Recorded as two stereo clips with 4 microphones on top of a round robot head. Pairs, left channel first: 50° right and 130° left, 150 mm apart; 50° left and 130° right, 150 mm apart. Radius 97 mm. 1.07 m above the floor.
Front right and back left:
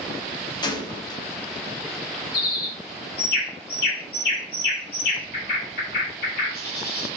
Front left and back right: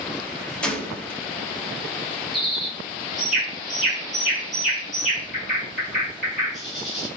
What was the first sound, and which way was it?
A gunshot, 25° right.